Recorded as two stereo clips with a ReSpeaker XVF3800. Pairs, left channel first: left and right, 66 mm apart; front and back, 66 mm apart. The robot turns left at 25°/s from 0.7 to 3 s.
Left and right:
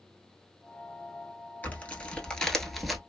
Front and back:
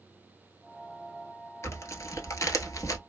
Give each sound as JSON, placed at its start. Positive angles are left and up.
{"t": 1.6, "sound": "tearing paper", "azimuth_deg": 30, "distance_m": 1.0}